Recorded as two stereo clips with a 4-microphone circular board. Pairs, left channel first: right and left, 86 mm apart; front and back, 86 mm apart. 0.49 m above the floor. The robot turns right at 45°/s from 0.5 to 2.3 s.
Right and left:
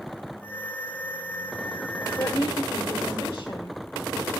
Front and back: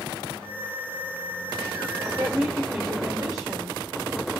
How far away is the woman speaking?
About 2 m.